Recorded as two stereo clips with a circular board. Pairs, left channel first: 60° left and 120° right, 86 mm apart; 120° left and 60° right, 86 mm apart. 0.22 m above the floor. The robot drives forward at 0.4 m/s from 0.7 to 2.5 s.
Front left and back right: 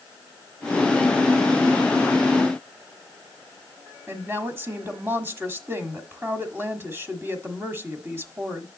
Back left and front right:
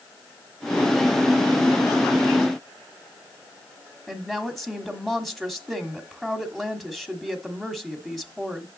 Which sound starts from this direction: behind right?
A woman speaking, at 4.1 s.